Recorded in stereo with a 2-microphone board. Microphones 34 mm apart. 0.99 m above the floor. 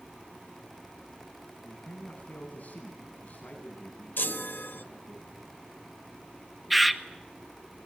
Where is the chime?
70° left (ahead or behind), 1.0 m.